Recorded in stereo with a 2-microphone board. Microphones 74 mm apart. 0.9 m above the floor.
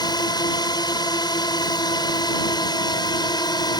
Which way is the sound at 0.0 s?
70° left (ahead or behind).